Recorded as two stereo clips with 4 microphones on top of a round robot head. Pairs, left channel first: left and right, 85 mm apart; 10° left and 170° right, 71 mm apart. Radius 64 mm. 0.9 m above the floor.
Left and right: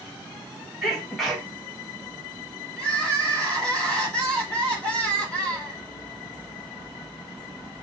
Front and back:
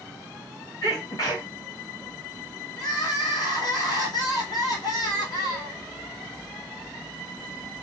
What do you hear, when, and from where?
0.8 s a sneeze: straight ahead, 1.7 m
2.8 s crying: 10° left, 1.4 m